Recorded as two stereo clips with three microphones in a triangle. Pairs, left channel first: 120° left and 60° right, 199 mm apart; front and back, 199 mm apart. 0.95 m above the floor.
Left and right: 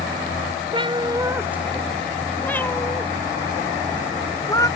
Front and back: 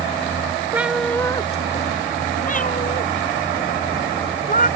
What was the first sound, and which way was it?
A cat meowing, 105° right.